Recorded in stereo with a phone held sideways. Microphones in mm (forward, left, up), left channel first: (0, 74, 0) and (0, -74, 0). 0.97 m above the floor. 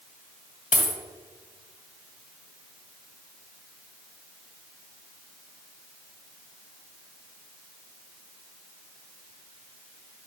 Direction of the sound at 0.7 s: 60° left (ahead or behind).